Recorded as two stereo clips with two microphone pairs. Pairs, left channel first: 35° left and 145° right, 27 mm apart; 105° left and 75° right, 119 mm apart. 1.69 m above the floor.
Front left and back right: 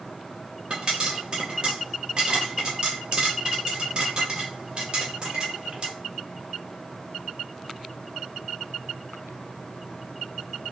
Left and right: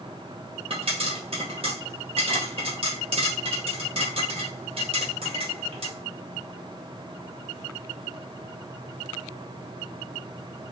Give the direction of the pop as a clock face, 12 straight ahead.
3 o'clock.